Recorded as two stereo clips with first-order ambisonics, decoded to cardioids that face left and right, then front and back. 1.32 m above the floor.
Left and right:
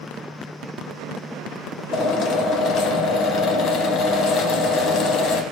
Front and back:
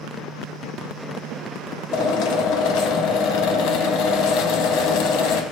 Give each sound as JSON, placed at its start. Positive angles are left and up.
{"t": 1.9, "sound": "a drill", "azimuth_deg": 35, "distance_m": 0.8}